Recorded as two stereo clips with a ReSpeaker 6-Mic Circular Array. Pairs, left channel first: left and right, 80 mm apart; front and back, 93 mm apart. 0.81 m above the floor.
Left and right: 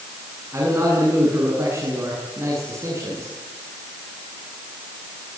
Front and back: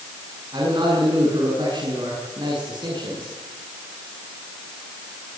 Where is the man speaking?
145° right, 8.5 m.